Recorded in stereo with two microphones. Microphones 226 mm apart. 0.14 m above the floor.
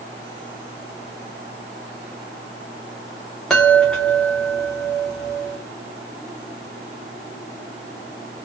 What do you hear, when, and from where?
3.5 s a chime: 5° left (ahead or behind), 2 m